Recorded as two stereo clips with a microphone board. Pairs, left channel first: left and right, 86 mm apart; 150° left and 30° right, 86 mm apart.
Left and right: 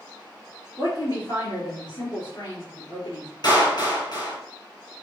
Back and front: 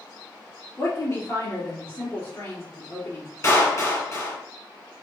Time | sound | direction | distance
0.8 | a woman speaking | 115° left | 2.0 m
3.4 | a clap | 100° left | 2.5 m